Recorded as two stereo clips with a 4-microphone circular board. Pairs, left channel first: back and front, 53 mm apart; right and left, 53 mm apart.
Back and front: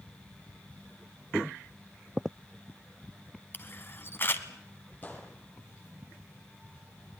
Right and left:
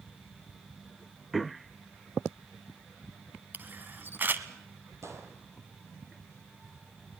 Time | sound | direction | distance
3.5 | a camera shutter | 140° left | 1.2 m
5.0 | a gunshot | 120° left | 3.5 m